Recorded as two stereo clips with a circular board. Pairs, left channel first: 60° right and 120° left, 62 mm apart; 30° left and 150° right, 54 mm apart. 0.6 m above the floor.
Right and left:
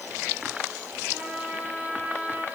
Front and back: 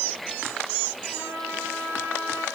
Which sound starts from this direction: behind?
A trumpet, at 1.1 s.